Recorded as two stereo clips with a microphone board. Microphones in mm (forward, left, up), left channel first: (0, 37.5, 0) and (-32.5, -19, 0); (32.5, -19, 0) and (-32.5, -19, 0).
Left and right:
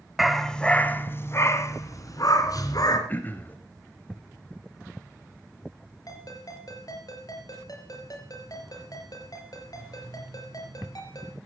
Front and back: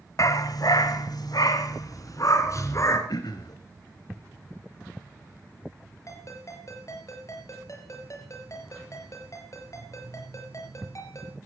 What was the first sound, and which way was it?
A dog barking, 30° right.